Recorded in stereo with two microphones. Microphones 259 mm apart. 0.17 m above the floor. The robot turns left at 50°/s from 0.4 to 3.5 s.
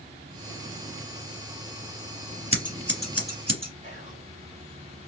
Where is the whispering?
25° right (ahead or behind), 1.2 m.